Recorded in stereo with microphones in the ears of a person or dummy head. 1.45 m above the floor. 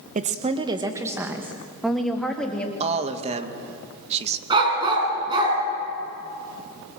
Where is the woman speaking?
40° right (ahead or behind), 1.4 m; by 2.7 s 5° left (ahead or behind), 3 m.